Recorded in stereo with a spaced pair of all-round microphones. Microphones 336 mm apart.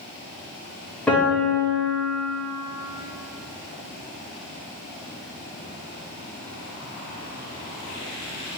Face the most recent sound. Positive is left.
turn(degrees=5)  # may be behind; listen again after turning